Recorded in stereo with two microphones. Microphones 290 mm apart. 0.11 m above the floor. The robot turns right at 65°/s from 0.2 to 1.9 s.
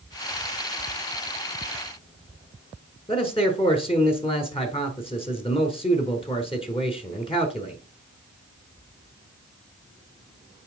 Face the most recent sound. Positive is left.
turn(degrees=20)  # may be behind; listen again after turning